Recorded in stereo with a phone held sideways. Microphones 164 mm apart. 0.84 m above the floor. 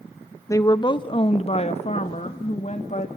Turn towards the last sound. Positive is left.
turn(degrees=45)  # may be behind; listen again after turning